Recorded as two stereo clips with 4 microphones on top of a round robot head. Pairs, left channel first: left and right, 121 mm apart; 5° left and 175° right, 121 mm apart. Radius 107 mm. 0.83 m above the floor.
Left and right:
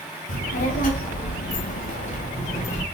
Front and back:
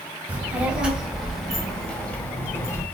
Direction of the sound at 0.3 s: 110° left.